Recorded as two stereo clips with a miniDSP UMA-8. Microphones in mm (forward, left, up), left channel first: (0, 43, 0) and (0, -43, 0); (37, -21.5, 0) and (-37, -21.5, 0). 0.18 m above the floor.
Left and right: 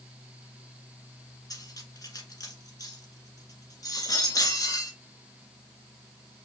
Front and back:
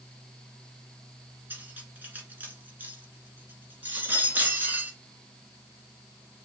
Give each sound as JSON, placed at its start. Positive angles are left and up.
{"t": 1.5, "sound": "cutlery clinking", "azimuth_deg": 120, "distance_m": 1.5}